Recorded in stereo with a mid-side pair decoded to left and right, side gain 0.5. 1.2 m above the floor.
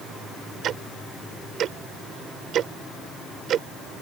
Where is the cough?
I don't hear a cough.